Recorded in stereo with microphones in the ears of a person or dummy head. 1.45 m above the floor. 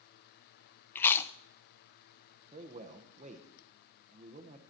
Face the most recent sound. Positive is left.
turn(degrees=-35)  # may be behind; listen again after turning